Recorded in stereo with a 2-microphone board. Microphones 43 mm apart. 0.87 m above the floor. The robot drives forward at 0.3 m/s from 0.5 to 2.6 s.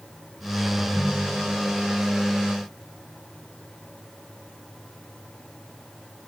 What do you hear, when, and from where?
0.8 s a ringtone: 40° left (ahead or behind)